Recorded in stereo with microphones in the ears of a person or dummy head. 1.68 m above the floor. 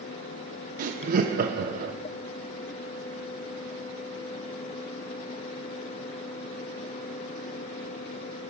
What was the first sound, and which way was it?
Laughter, 50° right (ahead or behind).